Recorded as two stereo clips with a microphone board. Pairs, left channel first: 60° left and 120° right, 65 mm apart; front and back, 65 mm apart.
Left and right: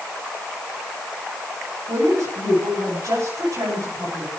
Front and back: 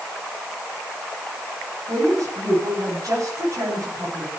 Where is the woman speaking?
145° right, 10 m.